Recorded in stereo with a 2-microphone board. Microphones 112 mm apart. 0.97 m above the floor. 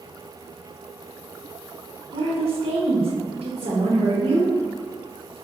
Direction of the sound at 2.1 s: 70° right (ahead or behind).